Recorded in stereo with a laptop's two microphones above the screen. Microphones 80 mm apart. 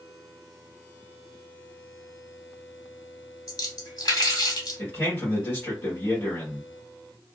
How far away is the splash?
About 1.5 m.